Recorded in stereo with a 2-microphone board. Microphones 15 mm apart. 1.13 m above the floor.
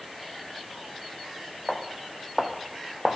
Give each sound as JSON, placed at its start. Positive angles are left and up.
{"t": 1.7, "sound": "footsteps", "side_deg": 0, "distance_m": 2.5}